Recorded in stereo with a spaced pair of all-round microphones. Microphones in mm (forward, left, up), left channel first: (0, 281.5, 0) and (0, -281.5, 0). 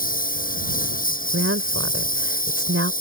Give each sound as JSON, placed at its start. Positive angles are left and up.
{"t": 0.0, "sound": "a lawn mower", "side_deg": 15}
{"t": 1.3, "sound": "a woman speaking", "side_deg": -25}